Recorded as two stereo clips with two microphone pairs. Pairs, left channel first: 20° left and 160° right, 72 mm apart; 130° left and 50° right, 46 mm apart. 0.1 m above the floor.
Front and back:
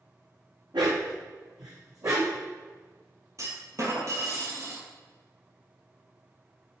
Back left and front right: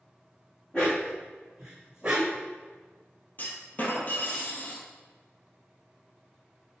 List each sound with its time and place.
0.7 s a dog barking: 160° right, 2.0 m; by 2.4 s 115° right, 2 m
3.4 s a clunk: 170° left, 1.5 m